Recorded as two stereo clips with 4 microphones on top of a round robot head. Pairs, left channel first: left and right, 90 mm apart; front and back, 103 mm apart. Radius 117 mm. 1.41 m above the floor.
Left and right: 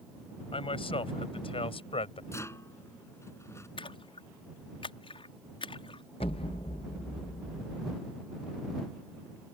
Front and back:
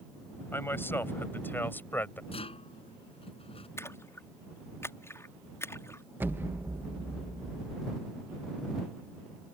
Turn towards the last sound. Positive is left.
turn(degrees=120)